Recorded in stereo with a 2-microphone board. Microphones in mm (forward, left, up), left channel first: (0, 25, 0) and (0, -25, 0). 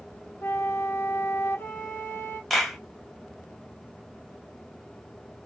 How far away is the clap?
About 1.2 m.